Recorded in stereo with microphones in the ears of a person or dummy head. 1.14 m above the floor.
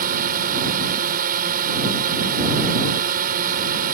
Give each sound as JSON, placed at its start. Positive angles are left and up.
{"t": 0.0, "sound": "a drone", "side_deg": -50}